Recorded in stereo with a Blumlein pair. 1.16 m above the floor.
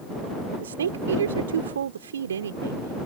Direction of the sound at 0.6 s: 65° right.